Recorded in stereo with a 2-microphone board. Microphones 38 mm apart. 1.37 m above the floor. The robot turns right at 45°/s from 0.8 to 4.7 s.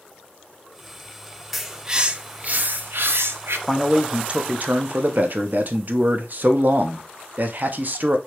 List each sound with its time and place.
1.5 s a bird: 175° right, 0.5 m; by 3.6 s 85° right, 0.5 m
3.7 s a man speaking: 175° right, 0.6 m; by 8.2 s 125° right, 0.6 m